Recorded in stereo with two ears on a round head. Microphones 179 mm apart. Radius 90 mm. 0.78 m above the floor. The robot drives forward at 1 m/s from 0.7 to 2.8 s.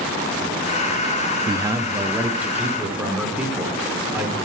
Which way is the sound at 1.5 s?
20° right (ahead or behind).